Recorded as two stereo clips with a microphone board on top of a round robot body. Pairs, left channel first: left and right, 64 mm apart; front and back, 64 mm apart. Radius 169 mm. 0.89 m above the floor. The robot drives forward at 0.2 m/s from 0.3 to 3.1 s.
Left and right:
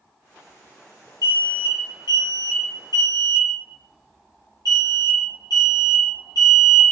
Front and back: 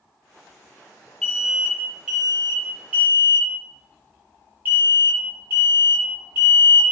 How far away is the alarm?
About 0.7 m.